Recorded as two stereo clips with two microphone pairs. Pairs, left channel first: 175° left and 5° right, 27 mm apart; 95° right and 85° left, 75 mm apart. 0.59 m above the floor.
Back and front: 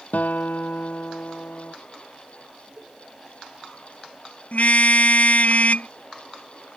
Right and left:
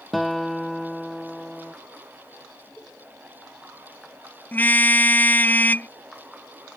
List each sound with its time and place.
0.1 s a guitar: straight behind
2.8 s a cowbell: 20° left
4.5 s a car horn: 160° right